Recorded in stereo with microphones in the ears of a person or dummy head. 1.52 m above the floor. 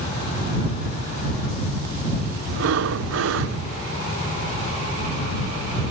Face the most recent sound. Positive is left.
turn(degrees=-75)  # may be behind; listen again after turning